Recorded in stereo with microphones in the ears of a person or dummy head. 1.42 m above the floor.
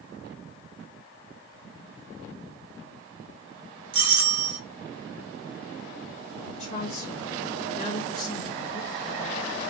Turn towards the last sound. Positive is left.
turn(degrees=40)  # may be behind; listen again after turning